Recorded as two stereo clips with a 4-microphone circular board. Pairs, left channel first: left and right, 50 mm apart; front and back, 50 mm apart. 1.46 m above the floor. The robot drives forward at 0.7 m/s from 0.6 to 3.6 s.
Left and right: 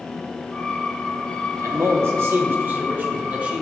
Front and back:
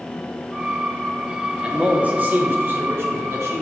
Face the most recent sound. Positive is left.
turn(degrees=-150)